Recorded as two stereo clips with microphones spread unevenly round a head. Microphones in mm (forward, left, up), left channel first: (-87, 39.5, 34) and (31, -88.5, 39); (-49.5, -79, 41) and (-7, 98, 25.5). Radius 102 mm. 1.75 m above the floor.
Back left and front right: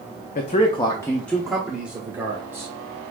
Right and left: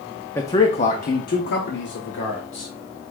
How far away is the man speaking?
About 0.5 m.